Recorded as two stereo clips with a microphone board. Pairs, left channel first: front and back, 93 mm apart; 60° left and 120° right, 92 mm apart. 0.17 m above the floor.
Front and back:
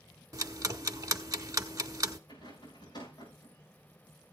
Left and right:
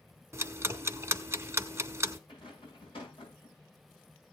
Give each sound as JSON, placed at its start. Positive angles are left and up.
{"t": 0.3, "sound": "ticking", "azimuth_deg": -165, "distance_m": 0.8}
{"t": 2.3, "sound": "a rattle", "azimuth_deg": 40, "distance_m": 7.0}